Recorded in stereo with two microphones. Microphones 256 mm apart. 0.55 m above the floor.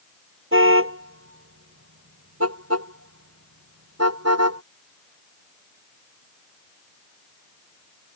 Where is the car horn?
55° right (ahead or behind); by 4.6 s 85° right.